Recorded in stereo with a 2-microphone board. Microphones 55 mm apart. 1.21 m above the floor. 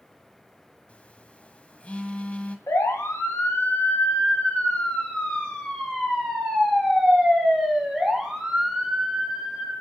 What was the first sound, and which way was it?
A phone buzzing, 25° left (ahead or behind).